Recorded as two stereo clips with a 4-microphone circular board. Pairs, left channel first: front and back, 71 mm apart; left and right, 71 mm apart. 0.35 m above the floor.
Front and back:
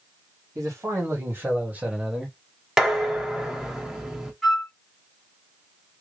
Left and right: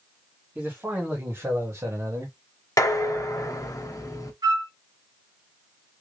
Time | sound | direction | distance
0.6 | a man speaking | 150° right | 2 m
2.8 | dishes clattering | 100° left | 1.0 m
4.4 | a flute | 85° right | 2.5 m